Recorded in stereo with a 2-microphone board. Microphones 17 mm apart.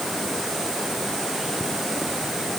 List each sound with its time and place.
Only background noise.